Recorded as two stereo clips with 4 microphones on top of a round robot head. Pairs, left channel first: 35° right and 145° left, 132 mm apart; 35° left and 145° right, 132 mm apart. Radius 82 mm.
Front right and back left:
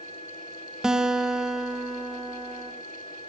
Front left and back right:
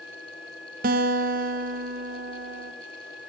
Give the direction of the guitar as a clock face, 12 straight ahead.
4 o'clock.